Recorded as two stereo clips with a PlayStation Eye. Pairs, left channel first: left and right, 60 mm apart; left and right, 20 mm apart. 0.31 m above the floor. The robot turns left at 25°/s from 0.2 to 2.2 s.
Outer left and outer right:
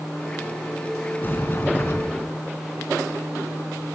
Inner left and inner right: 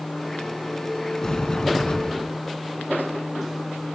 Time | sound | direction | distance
1.2 | a sliding door | 35° left (ahead or behind) | 3.5 m